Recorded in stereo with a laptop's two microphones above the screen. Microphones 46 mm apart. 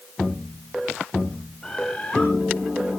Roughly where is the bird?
Centre.